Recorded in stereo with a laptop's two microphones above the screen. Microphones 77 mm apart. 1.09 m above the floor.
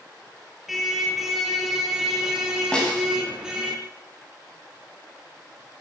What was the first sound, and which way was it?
A car horn, centre (ahead or behind).